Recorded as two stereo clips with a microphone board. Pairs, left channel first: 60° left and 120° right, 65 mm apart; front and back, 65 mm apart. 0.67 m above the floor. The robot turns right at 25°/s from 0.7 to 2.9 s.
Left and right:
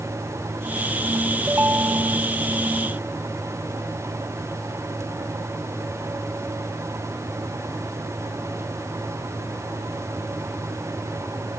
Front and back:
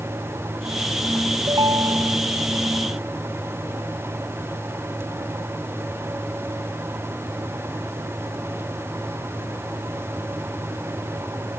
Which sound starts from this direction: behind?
A ringtone, at 1.5 s.